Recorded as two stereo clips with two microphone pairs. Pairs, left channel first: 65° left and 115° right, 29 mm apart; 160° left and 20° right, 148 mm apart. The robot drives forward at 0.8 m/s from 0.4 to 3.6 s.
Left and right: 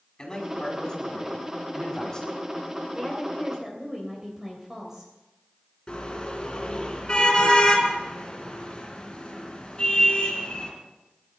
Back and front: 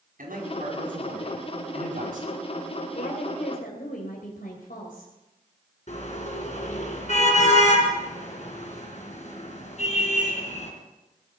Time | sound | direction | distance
0.2 | a man speaking | straight ahead | 6 m
3.0 | a woman speaking | 170° left | 2.5 m
5.9 | a car horn | 125° left | 3.5 m